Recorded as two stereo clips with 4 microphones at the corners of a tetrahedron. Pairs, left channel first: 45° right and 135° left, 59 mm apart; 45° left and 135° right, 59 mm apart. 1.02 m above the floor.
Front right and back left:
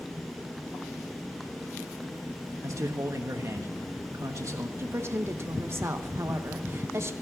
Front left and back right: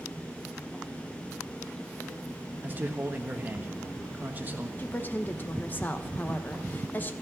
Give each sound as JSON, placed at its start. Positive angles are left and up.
{"t": 2.6, "sound": "a man speaking", "azimuth_deg": 165, "distance_m": 1.3}
{"t": 4.8, "sound": "a woman speaking", "azimuth_deg": 100, "distance_m": 0.9}